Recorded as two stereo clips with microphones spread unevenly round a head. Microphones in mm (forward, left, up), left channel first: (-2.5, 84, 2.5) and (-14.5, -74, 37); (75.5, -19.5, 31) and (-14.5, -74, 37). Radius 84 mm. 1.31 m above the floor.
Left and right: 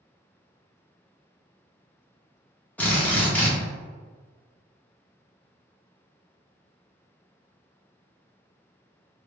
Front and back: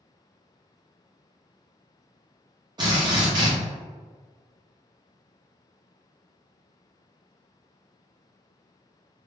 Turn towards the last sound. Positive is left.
turn(degrees=180)